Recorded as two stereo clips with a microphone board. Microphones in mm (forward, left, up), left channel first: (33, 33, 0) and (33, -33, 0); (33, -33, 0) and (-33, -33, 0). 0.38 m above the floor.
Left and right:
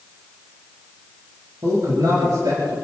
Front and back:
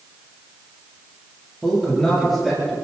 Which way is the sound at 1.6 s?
80° right.